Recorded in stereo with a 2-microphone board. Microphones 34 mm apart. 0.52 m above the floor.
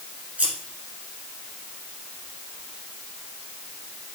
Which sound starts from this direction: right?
Scissors, at 0.4 s.